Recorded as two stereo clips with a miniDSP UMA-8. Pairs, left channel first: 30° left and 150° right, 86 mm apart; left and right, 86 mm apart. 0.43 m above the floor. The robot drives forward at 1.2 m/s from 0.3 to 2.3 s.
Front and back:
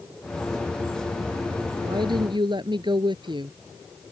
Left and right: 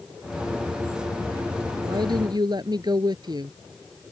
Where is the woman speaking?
120° right; by 3.6 s 125° right.